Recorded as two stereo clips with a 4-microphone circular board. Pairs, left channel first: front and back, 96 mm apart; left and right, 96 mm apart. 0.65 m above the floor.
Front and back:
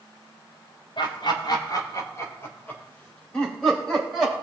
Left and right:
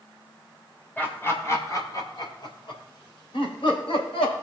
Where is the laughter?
20° left, 3 m; by 4.3 s 90° left, 5.5 m.